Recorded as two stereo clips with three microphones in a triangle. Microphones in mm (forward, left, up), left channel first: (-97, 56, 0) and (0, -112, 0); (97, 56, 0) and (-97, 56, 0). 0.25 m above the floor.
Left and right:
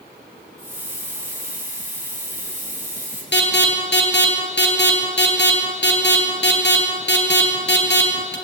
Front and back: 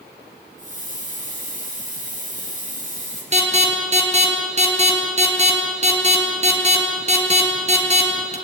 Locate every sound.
0.6 s a hiss: 135° right, 6 m
3.3 s an alarm: 130° left, 3.5 m